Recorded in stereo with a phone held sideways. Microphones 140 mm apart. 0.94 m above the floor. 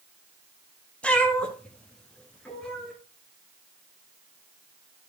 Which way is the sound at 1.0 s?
10° left (ahead or behind).